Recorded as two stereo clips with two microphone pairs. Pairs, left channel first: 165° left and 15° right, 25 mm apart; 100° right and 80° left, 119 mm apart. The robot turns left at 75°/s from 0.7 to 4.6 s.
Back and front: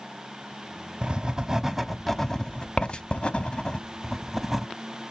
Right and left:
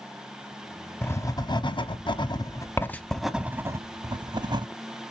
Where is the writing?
30° right, 0.5 m; by 4.7 s 60° left, 0.5 m.